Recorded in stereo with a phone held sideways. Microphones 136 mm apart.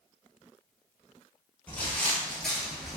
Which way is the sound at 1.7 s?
10° left (ahead or behind).